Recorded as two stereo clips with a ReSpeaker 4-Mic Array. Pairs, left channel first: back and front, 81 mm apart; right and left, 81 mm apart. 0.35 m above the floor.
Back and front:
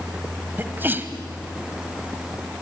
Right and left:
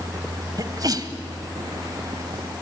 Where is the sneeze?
60° left, 1.6 m.